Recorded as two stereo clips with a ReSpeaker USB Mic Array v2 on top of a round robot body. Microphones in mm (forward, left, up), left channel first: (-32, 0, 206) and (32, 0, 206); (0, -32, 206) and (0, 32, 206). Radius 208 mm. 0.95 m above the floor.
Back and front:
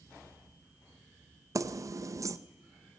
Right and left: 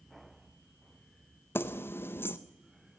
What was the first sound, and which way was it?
Keys jangling, 35° right.